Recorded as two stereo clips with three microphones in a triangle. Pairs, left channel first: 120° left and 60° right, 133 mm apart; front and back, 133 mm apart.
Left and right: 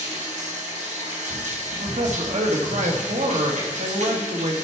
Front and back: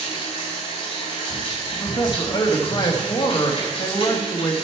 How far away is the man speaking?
About 1.3 m.